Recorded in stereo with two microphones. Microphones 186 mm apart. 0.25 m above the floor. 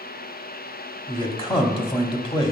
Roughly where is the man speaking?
Left.